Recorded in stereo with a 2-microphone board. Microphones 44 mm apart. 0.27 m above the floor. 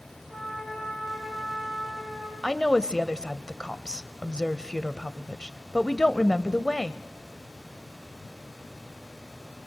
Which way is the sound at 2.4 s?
20° left (ahead or behind).